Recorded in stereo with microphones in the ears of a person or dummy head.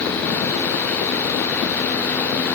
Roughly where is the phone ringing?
I don't hear a phone ringing.